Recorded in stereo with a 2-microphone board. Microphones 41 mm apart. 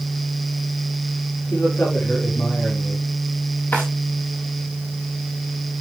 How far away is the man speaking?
About 8.5 m.